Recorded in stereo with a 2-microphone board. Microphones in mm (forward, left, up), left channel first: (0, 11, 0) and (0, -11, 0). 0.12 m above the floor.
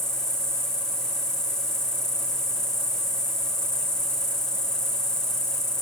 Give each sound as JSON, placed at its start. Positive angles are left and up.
{"t": 0.0, "sound": "an insect", "side_deg": 25, "distance_m": 2.5}